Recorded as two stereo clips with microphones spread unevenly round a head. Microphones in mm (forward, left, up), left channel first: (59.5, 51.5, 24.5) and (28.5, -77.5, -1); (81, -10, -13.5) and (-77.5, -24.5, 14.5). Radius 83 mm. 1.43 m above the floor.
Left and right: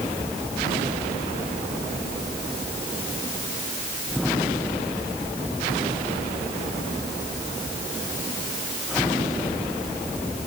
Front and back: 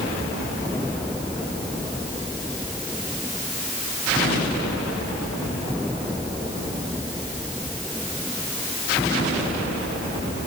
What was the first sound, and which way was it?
Only background noise.